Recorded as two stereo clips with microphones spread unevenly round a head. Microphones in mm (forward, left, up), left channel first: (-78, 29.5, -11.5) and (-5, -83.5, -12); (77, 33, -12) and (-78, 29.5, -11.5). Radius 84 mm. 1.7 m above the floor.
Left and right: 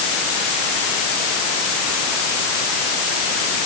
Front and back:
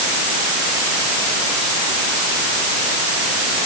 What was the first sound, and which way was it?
Only background noise.